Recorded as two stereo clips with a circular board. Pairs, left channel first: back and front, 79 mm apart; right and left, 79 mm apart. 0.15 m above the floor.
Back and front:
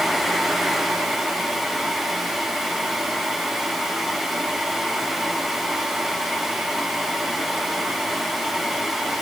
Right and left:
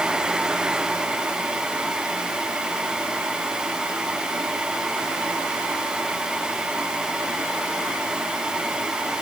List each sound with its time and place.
Only background noise.